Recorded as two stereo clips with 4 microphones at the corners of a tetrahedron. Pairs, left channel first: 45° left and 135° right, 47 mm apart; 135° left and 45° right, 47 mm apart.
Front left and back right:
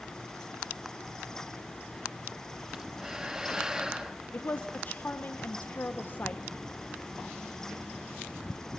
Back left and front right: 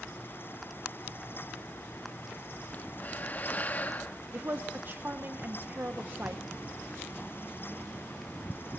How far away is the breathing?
About 0.9 m.